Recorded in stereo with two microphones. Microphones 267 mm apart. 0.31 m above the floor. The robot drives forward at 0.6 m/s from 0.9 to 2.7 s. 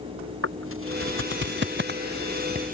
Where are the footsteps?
55° right (ahead or behind); by 2.7 s 30° right (ahead or behind).